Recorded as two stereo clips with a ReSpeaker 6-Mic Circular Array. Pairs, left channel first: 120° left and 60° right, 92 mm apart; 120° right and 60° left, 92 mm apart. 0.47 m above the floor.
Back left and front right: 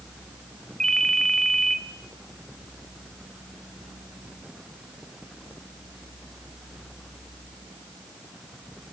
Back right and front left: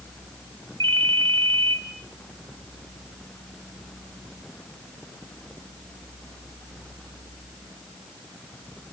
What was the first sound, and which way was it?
A ringtone, 35° left.